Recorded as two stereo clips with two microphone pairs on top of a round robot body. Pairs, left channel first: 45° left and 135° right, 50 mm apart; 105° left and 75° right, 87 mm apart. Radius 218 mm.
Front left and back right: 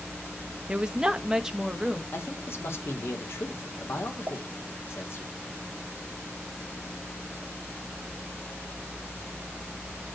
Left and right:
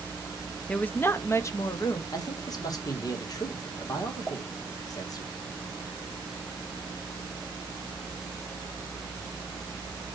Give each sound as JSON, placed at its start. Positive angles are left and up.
{"t": 0.7, "sound": "a woman speaking", "azimuth_deg": 165, "distance_m": 0.9}
{"t": 2.1, "sound": "a man speaking", "azimuth_deg": 65, "distance_m": 2.5}
{"t": 4.3, "sound": "a pop", "azimuth_deg": 170, "distance_m": 2.0}